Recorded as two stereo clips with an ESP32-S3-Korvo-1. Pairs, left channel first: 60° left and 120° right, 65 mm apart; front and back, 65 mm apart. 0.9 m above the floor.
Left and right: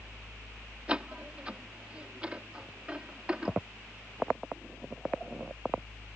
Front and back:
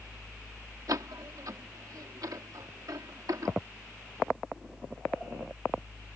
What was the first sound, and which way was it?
A door slam, 170° left.